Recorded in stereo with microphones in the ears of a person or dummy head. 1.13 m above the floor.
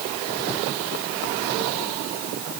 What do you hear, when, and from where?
Only background noise.